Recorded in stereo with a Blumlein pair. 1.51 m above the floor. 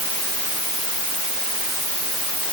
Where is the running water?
I don't hear running water.